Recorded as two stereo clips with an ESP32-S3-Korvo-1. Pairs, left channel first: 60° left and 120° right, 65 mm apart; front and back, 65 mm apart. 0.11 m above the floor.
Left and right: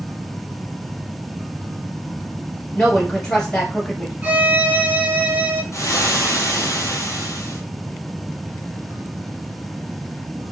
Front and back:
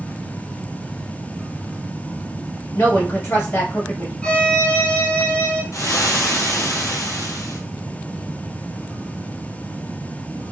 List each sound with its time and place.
2.8 s a woman speaking: 15° right, 1.4 m
4.2 s a violin: 65° right, 0.9 m
5.7 s frying: 25° left, 0.7 m